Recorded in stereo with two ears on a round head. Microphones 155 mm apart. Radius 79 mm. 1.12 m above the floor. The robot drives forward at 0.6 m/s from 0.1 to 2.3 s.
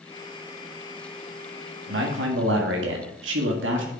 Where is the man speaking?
70° right (ahead or behind), 1.8 m; by 3.9 s 75° right (ahead or behind), 1.7 m.